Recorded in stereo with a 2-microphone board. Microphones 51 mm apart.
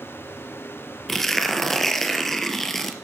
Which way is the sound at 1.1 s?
5° left (ahead or behind).